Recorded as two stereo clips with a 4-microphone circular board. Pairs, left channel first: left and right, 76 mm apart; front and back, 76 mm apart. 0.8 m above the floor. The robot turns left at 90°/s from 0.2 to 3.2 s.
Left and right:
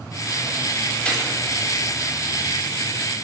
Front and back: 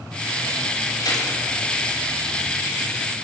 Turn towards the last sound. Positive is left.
turn(degrees=180)